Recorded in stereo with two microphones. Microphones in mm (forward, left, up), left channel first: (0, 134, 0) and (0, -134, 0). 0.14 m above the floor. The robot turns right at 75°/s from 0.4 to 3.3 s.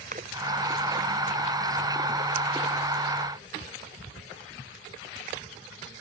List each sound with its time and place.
0.1 s a splash: 35° right (ahead or behind)